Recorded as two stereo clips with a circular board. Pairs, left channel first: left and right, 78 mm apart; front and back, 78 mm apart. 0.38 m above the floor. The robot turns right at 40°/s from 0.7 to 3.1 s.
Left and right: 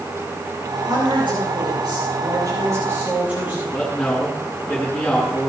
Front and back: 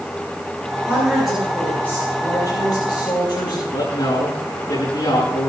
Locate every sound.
0.9 s a woman speaking: 110° right, 6.5 m; by 3.6 s 20° right, 6.5 m
3.7 s a man speaking: 10° left, 5.5 m